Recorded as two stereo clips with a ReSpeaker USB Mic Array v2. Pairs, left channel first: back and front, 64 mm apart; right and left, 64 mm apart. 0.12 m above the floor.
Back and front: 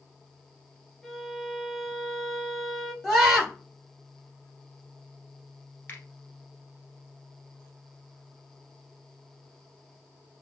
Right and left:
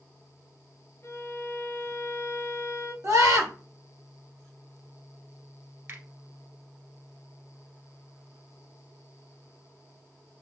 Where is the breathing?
I don't hear breathing.